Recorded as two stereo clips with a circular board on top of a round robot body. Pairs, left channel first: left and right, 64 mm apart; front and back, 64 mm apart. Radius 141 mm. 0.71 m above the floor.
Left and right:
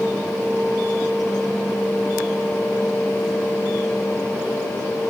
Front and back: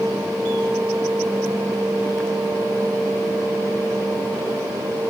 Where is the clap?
I don't hear a clap.